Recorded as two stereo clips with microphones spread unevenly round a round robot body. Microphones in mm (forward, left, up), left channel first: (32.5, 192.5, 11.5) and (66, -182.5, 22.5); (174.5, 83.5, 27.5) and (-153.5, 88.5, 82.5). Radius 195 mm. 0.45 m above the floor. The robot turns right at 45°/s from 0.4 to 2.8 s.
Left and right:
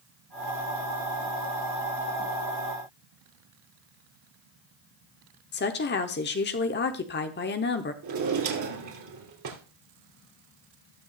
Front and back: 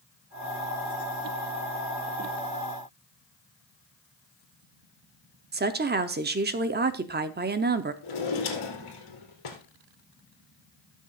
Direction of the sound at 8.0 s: 40° right.